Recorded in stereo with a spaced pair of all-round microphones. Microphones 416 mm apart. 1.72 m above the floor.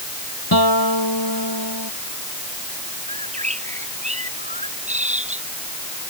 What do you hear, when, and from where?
0.5 s a guitar: 60° left (ahead or behind)
3.1 s a bird: 15° right (ahead or behind)